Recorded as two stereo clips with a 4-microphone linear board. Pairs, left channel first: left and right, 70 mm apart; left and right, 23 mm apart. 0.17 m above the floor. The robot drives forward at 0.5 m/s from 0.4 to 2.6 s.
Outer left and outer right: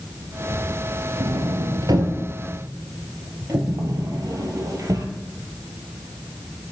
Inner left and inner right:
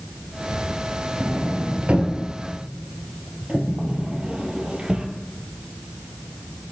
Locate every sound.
1.2 s a sliding door: 75° right (ahead or behind), 0.9 m; by 5.1 s 50° right (ahead or behind), 1.1 m